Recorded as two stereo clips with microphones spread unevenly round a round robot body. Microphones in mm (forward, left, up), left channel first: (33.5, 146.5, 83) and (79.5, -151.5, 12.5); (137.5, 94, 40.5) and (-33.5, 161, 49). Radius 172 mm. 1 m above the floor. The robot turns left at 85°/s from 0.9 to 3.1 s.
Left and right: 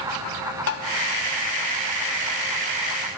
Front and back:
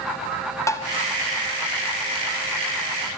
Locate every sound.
0.7 s tapping: 50° left, 1.4 m